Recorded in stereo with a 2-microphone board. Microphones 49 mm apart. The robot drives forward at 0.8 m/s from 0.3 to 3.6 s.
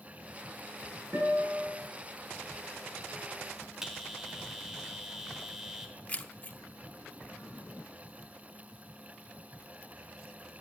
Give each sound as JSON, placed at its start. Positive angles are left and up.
{"t": 1.1, "sound": "a guitar", "side_deg": -55, "distance_m": 8.0}
{"t": 3.8, "sound": "a bell", "side_deg": -10, "distance_m": 1.4}
{"t": 6.1, "sound": "keys jangling", "side_deg": 35, "distance_m": 0.6}